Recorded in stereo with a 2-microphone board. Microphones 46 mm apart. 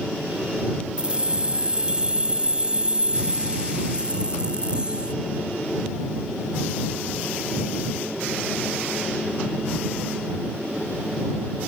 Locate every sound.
1.0 s keys jangling: 20° right (ahead or behind)